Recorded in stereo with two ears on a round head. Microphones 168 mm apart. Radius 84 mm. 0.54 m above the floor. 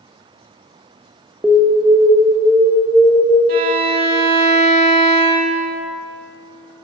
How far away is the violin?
About 0.8 m.